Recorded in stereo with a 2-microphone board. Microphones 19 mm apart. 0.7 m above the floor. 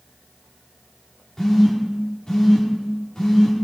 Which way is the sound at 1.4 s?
35° left (ahead or behind).